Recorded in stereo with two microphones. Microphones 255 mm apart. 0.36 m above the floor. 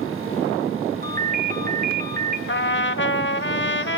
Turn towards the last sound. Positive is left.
turn(degrees=45)  # may be behind; listen again after turning